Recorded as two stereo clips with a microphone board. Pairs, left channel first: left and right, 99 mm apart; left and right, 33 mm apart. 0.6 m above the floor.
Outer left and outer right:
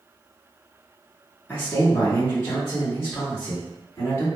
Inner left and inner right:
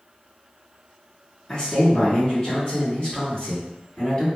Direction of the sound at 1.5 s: 20° left (ahead or behind).